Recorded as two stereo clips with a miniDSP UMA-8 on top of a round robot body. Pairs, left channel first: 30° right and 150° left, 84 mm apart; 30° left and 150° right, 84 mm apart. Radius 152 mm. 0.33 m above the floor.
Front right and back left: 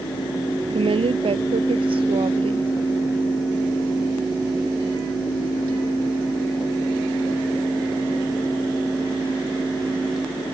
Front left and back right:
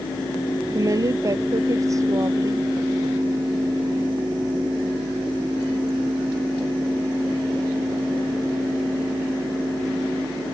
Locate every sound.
0.7 s a woman speaking: 160° left